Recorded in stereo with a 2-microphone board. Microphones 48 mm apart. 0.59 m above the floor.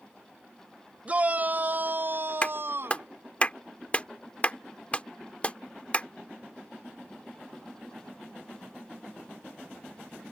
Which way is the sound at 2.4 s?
30° left (ahead or behind).